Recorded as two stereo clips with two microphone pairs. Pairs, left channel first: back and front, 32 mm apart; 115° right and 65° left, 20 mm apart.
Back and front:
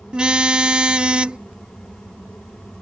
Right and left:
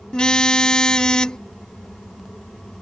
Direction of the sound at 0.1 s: 60° right.